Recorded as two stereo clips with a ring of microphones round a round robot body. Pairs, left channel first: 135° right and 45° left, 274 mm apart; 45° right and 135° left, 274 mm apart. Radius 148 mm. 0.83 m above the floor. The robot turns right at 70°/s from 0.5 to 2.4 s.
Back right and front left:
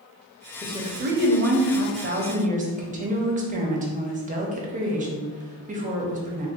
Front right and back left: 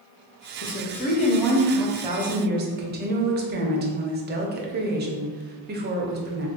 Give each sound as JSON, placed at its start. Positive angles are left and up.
{"t": 0.6, "sound": "a woman speaking", "azimuth_deg": -30, "distance_m": 0.7}